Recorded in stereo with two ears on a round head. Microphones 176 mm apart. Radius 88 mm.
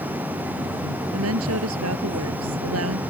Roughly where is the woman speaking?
Right.